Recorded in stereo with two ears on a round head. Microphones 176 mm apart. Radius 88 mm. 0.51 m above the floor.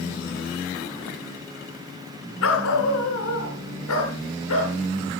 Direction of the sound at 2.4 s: 80° left.